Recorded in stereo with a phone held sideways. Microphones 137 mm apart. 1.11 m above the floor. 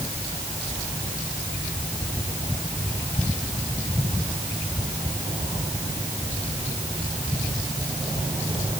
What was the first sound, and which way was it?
Only background noise.